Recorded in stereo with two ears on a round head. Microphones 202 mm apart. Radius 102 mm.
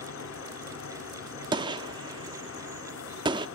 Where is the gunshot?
20° right (ahead or behind), 0.7 m.